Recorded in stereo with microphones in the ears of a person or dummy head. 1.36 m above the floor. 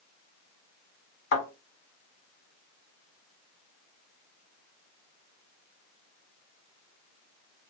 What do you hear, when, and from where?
1.3 s a thud: 60° left (ahead or behind), 1.8 m